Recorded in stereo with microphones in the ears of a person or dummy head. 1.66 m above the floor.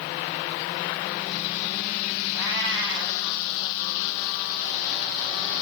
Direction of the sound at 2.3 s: 20° right (ahead or behind).